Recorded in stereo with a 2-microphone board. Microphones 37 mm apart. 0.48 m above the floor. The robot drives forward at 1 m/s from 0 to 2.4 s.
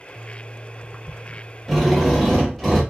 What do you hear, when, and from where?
1.7 s a drill: 5° right (ahead or behind), 1.3 m; by 2.8 s centre (ahead or behind), 1.9 m